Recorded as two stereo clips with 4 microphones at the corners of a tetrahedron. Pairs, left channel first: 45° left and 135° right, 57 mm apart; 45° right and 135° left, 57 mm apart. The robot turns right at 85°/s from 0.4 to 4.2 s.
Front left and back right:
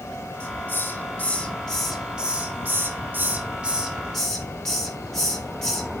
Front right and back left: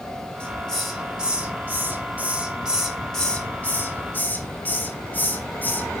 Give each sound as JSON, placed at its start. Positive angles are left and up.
{"t": 0.4, "sound": "a hiss", "azimuth_deg": 5, "distance_m": 1.6}